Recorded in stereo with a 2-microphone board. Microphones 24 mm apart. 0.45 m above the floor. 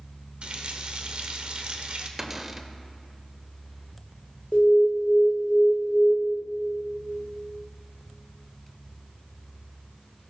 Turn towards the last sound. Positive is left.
turn(degrees=55)  # may be behind; listen again after turning